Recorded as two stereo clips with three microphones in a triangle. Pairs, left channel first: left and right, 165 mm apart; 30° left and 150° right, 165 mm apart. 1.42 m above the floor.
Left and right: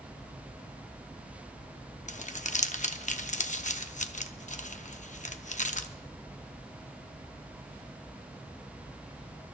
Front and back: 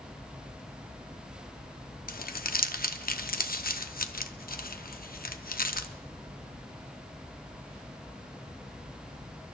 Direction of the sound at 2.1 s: 50° left.